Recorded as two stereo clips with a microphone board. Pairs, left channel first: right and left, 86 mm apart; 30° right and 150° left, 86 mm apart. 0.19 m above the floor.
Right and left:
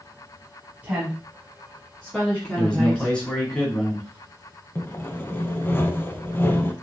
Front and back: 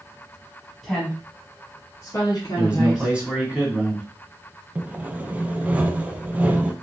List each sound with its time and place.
0.8 s a woman speaking: 55° left, 1.0 m; by 3.1 s 30° right, 1.7 m
2.5 s a man speaking: 155° right, 1.4 m
4.8 s sawing: 145° right, 0.5 m